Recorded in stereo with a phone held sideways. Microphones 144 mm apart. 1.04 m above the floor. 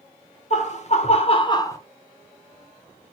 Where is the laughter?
50° left (ahead or behind), 1.1 m; by 1.8 s 20° left (ahead or behind), 0.7 m.